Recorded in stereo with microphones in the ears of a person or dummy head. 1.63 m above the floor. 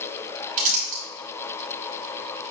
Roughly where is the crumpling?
Right.